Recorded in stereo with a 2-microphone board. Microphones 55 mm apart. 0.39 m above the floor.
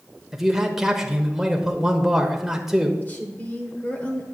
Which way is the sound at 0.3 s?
10° right (ahead or behind).